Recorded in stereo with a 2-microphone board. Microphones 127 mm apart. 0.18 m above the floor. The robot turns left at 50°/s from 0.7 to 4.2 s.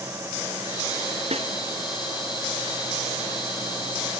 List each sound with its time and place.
1.3 s a snare drum: 55° right (ahead or behind), 1.9 m